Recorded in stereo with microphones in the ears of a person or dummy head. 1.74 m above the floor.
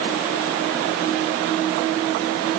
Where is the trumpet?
No trumpet in this recording.